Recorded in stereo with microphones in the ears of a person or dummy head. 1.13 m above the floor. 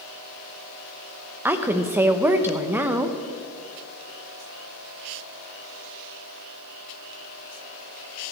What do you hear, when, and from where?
1.4 s a woman speaking: 10° right (ahead or behind), 0.8 m